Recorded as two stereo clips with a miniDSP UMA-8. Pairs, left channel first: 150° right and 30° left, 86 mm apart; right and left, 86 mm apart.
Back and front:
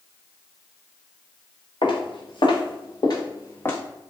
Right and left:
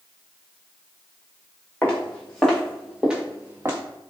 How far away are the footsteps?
About 1.3 m.